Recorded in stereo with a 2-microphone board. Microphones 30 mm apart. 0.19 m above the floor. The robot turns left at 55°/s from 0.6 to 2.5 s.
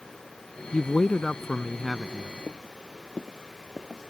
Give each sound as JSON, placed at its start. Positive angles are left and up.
{"t": 0.7, "sound": "a man speaking", "azimuth_deg": 60}
{"t": 2.5, "sound": "footsteps", "side_deg": 45}